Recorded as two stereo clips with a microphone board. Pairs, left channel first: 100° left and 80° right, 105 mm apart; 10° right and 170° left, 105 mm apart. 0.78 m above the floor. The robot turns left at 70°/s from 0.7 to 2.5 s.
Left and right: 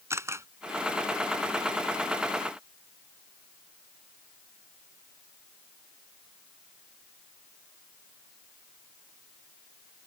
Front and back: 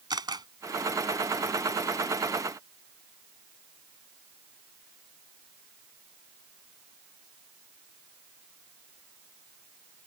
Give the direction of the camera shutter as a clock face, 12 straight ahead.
5 o'clock.